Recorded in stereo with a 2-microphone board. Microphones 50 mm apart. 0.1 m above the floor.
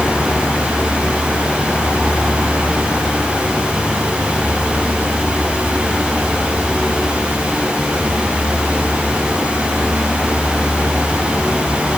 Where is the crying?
No crying in this recording.